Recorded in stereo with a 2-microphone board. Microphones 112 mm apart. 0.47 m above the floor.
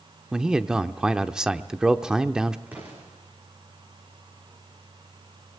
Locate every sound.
0.3 s a man speaking: 5° right (ahead or behind), 0.9 m
2.7 s an explosion: 15° right (ahead or behind), 7.5 m